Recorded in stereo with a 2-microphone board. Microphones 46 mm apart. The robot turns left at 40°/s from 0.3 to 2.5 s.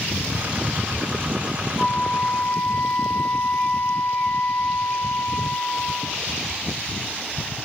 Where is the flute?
Centre (ahead or behind), 3.5 m; by 6.2 s 25° left (ahead or behind), 3.5 m.